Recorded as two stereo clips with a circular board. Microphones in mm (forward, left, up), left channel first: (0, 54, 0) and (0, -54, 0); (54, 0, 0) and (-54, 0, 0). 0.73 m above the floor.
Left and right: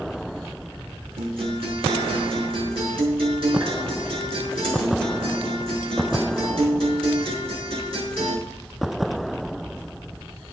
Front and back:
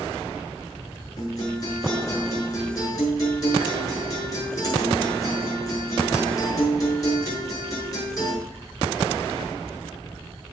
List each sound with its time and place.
1.2 s a guitar: 55° right, 5.5 m